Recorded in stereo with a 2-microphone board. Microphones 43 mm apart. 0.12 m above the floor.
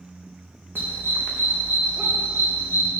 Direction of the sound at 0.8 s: 55° right (ahead or behind).